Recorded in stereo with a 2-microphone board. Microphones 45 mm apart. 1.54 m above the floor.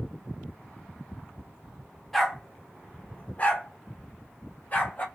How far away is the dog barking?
About 1.2 m.